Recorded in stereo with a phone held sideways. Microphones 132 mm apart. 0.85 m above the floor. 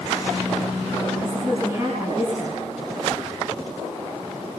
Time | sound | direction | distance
1.2 | a woman speaking | 25° right (ahead or behind) | 7.5 m